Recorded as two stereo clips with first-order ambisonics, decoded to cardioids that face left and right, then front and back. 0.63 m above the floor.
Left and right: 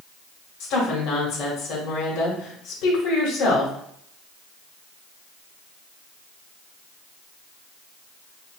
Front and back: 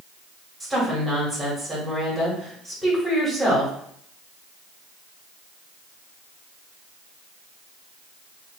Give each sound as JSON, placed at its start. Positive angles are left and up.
{"t": 0.6, "sound": "a woman speaking", "azimuth_deg": 90, "distance_m": 1.9}